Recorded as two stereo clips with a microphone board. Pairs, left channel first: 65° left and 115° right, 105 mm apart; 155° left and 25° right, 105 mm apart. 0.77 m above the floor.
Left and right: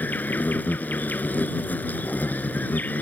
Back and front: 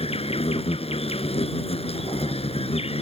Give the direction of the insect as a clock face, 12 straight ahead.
7 o'clock.